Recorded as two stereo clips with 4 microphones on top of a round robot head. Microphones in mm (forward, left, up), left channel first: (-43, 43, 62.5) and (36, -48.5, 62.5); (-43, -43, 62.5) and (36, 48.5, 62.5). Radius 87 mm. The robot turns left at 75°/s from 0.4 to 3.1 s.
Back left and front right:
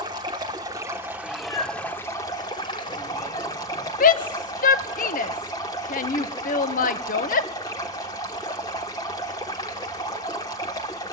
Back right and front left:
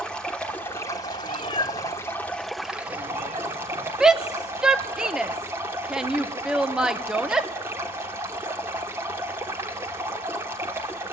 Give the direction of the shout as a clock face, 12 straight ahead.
8 o'clock.